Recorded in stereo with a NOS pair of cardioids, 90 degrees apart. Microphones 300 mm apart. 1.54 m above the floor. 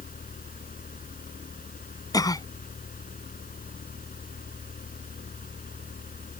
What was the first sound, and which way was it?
A fan, 30° left.